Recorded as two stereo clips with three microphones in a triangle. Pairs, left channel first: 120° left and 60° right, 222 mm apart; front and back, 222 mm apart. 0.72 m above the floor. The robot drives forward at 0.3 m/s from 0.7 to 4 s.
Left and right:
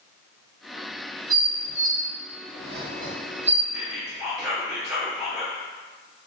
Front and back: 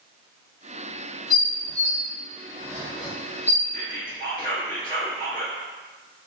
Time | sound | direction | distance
1.3 | dishes clattering | 70° right | 0.7 m
3.7 | whispering | 25° left | 1.1 m